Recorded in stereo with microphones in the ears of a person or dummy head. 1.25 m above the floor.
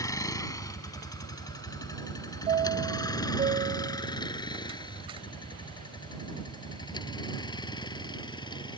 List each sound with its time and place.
0.0 s a vehicle: 20° left (ahead or behind); by 8.8 s 25° left (ahead or behind)
2.5 s a chime: 25° right (ahead or behind)